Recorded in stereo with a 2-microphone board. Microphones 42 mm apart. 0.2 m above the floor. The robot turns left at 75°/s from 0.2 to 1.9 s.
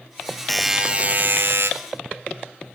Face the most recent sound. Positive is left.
turn(degrees=-100)